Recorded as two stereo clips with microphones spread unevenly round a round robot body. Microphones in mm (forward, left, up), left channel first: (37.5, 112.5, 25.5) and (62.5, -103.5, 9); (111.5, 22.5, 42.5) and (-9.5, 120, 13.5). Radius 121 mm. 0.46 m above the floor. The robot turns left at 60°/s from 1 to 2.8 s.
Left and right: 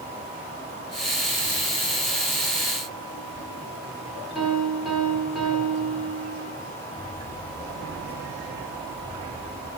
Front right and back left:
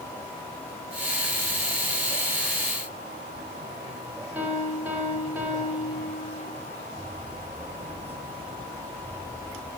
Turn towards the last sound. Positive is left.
turn(degrees=-170)